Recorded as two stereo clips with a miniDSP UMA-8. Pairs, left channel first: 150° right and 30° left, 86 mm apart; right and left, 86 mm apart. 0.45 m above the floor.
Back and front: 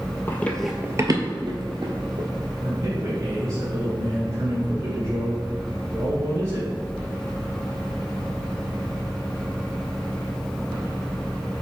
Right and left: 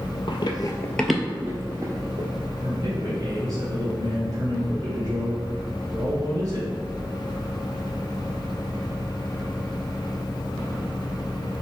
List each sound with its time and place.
0.3 s running footsteps: 90° right, 0.9 m; by 2.3 s 45° left, 1.8 m
2.6 s a man speaking: 65° left, 1.9 m